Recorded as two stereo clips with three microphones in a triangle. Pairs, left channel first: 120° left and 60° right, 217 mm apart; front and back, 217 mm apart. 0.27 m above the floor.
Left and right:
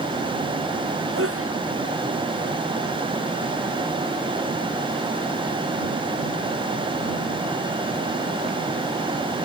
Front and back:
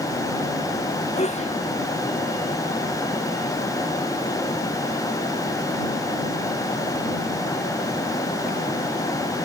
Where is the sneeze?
60° right.